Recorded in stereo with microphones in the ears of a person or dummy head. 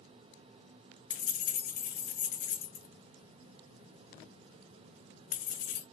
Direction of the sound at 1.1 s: 45° left (ahead or behind).